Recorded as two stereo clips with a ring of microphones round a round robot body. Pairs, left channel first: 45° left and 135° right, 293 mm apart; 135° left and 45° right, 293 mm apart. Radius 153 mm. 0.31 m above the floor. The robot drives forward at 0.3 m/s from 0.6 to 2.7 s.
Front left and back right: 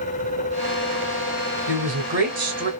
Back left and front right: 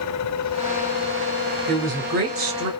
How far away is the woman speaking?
About 2 m.